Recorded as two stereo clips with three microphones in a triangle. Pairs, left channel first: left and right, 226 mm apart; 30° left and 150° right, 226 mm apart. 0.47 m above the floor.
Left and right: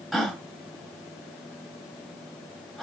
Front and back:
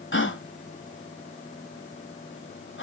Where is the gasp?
Straight ahead, 1.6 m.